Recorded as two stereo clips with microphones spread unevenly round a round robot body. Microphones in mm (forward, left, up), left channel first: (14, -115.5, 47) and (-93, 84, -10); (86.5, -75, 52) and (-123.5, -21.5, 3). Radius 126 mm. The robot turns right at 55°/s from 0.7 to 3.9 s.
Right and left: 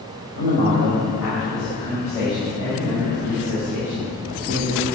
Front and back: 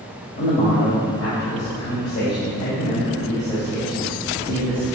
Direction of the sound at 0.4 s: 70° right.